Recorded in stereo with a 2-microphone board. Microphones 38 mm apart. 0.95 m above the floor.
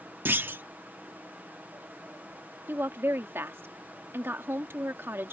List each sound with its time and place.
0.2 s a clunk: 65° right (ahead or behind)
2.7 s a woman speaking: 80° right